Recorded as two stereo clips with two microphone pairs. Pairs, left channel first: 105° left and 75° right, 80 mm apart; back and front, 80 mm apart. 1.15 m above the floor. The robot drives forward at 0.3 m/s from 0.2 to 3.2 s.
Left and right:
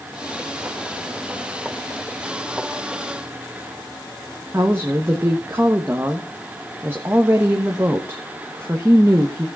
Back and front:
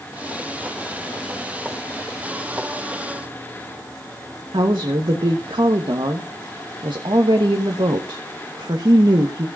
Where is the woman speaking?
10° right, 1.1 m.